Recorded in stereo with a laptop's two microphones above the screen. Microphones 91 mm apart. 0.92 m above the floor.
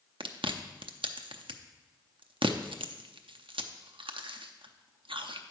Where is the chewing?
75° right (ahead or behind), 0.6 m.